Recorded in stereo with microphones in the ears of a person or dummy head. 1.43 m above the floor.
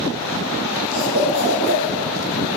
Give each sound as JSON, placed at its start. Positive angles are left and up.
{"t": 0.9, "sound": "a cough", "side_deg": -75, "distance_m": 4.5}